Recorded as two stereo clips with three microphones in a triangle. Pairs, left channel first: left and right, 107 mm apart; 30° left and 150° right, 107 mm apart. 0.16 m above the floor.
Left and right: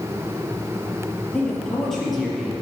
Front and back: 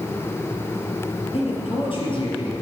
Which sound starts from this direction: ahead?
A man speaking, at 1.3 s.